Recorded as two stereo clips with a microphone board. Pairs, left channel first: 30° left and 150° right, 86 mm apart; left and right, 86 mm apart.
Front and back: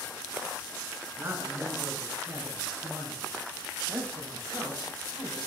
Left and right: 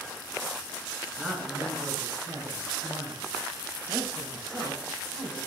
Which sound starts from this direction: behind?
A man speaking, at 1.2 s.